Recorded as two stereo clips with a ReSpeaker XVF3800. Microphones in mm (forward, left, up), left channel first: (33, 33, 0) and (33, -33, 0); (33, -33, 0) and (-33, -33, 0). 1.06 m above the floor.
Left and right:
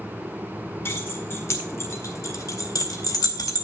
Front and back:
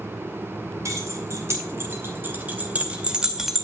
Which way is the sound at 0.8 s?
140° left.